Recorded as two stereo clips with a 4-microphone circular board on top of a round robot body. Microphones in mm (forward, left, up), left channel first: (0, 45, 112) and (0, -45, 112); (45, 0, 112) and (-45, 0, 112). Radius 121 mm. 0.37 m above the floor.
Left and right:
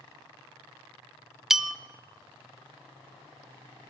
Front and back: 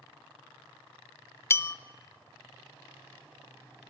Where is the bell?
10° right, 0.5 m.